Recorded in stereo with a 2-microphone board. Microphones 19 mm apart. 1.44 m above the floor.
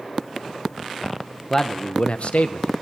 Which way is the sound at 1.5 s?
20° left (ahead or behind).